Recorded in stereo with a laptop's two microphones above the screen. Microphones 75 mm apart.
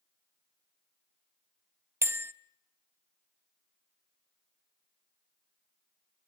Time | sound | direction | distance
2.0 | a bell | 35° right (ahead or behind) | 0.5 m